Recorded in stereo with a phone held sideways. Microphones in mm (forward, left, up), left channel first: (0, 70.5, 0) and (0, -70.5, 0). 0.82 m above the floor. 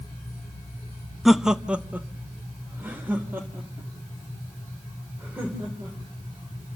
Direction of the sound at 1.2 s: Centre (ahead or behind).